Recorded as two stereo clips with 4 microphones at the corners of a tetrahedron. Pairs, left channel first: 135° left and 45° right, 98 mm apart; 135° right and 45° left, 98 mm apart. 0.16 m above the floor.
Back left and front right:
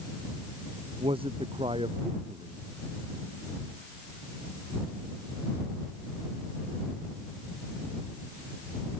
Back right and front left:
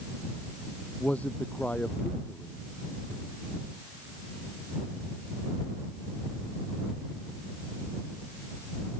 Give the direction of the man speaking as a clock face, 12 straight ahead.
2 o'clock.